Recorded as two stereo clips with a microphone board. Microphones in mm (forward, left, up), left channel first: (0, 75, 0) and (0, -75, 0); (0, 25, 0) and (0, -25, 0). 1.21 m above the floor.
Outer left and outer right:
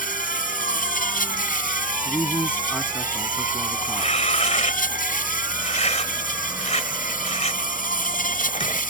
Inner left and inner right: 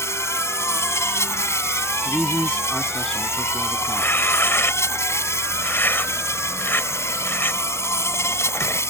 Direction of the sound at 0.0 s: 75° left (ahead or behind).